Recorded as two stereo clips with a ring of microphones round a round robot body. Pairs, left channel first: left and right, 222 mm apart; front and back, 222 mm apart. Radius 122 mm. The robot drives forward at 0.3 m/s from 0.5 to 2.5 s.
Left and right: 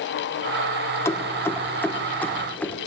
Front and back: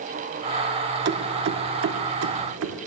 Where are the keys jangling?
165° left, 0.5 m; by 2.8 s 175° left, 0.9 m.